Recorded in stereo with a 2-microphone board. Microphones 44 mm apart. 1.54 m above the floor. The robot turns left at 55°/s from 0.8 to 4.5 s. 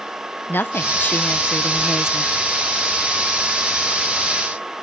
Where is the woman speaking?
60° left; by 2.3 s 25° right.